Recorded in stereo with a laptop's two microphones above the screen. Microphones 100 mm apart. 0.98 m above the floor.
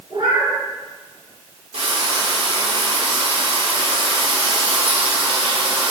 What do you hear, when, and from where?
0.1 s a cat meowing: 50° right (ahead or behind), 3.5 m
1.7 s frying: 70° right (ahead or behind), 2 m